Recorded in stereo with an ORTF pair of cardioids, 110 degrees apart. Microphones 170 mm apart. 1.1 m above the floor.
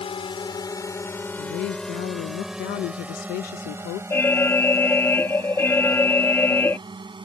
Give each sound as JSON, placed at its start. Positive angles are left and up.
{"t": 0.0, "sound": "a drone", "azimuth_deg": 35}
{"t": 1.4, "sound": "a woman speaking", "azimuth_deg": 65}
{"t": 4.1, "sound": "an alarm", "azimuth_deg": 15}